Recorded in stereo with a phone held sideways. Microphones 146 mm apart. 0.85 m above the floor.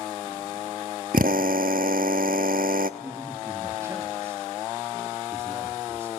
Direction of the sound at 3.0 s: 20° right (ahead or behind).